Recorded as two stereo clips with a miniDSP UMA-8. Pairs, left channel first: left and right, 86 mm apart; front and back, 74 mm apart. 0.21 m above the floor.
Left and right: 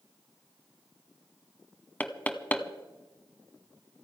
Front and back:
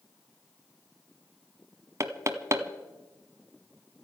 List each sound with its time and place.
2.0 s knocking: 155° left, 1.1 m